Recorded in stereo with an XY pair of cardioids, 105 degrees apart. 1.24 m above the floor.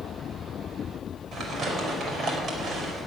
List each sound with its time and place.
1.3 s crumpling: 55° right, 5.5 m